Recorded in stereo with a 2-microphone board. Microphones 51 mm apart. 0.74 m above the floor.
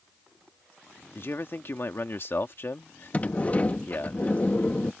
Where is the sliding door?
30° left (ahead or behind).